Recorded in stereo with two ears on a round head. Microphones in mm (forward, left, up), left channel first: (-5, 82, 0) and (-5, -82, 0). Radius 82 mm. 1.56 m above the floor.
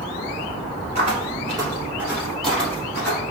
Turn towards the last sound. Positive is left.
turn(degrees=20)  # may be behind; listen again after turning